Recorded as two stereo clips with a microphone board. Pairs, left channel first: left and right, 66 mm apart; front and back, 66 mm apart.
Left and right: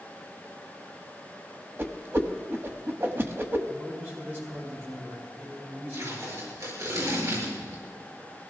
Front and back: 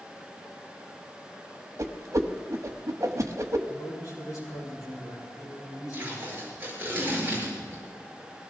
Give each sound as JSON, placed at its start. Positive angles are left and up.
{"t": 1.8, "sound": "a whoosh", "azimuth_deg": -140, "distance_m": 1.1}
{"t": 3.7, "sound": "a man speaking", "azimuth_deg": -35, "distance_m": 8.0}
{"t": 5.9, "sound": "tape being pulled", "azimuth_deg": -120, "distance_m": 7.0}